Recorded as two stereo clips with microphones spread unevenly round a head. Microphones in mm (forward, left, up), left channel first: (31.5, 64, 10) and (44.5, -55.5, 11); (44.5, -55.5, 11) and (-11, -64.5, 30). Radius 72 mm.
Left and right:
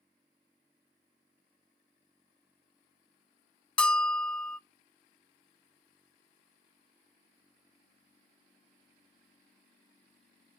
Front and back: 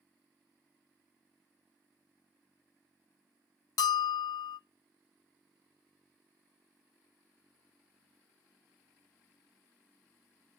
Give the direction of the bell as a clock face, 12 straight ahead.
11 o'clock.